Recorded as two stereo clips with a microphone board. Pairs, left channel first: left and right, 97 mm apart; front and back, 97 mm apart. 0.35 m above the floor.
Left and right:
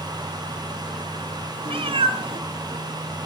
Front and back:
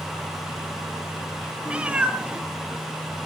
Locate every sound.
1.6 s a cat meowing: 105° right, 1.3 m